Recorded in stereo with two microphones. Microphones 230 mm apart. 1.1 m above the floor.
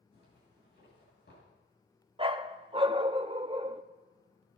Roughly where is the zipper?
Left.